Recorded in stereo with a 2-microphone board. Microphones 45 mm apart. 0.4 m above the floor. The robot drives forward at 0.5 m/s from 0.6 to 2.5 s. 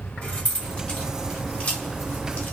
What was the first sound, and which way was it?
Keys jangling, 25° left (ahead or behind).